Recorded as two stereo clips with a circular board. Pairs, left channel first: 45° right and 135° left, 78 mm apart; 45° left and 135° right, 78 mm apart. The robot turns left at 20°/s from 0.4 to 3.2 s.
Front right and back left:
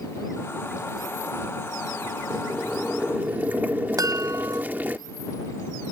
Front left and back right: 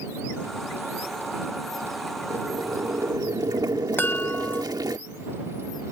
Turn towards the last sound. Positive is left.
turn(degrees=105)